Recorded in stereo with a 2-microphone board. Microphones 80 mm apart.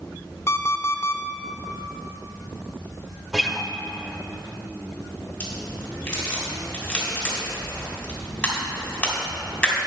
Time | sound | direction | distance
0.5 | an alarm clock | 30° left (ahead or behind) | 0.7 m
3.3 | a guitar | 5° right (ahead or behind) | 0.7 m
5.4 | a crack | 10° left (ahead or behind) | 3 m